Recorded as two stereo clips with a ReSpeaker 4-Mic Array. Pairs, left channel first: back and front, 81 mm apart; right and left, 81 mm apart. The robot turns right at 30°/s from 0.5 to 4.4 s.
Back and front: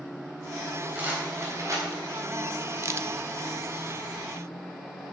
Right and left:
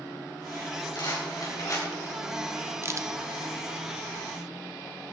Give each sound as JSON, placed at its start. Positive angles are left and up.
{"t": 0.9, "sound": "a rattle", "azimuth_deg": -65, "distance_m": 3.5}
{"t": 2.8, "sound": "a crack", "azimuth_deg": 45, "distance_m": 0.6}